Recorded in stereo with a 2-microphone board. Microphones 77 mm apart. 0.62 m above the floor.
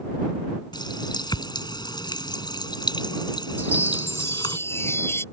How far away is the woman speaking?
I don't hear a woman speaking.